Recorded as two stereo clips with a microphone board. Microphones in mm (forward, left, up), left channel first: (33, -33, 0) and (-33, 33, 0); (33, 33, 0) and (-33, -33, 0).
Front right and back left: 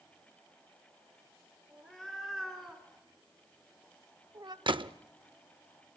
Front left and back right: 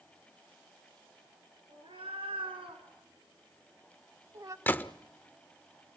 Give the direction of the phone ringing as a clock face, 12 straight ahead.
No phone ringing in this recording.